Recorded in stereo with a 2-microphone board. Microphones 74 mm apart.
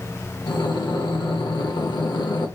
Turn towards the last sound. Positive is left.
turn(degrees=75)  # may be behind; listen again after turning